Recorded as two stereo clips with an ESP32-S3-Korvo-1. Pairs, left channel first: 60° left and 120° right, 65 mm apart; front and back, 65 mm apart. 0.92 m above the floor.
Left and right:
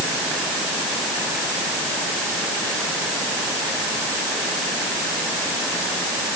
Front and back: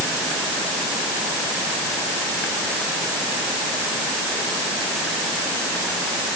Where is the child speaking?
No child speaking in this recording.